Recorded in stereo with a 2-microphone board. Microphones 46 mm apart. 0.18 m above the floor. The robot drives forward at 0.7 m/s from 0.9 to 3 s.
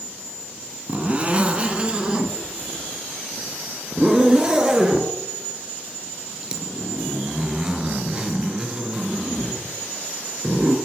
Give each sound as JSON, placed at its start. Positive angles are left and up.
{"t": 0.9, "sound": "a zipper", "side_deg": -30, "distance_m": 1.7}